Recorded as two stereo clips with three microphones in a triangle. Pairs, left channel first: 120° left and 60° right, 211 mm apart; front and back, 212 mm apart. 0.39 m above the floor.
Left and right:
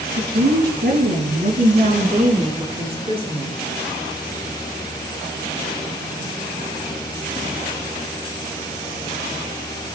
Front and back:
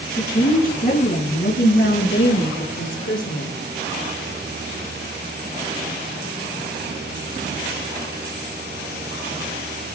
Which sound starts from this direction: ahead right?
A woman speaking, at 0.2 s.